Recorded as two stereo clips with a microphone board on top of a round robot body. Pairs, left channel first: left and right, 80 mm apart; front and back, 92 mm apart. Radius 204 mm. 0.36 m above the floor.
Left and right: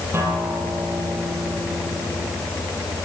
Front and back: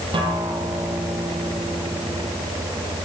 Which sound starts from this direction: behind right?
A guitar, at 0.1 s.